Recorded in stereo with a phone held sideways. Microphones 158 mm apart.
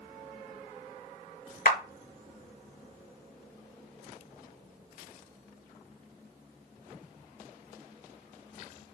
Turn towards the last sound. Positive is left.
turn(degrees=70)  # may be behind; listen again after turning